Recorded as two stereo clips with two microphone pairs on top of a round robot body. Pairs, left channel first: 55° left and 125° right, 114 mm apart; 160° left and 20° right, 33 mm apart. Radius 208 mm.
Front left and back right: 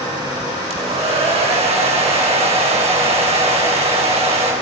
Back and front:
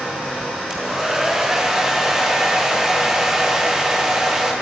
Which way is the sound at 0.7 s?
95° right.